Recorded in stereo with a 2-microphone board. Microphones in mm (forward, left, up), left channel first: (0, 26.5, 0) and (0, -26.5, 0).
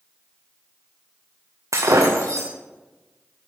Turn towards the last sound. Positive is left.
turn(degrees=-75)  # may be behind; listen again after turning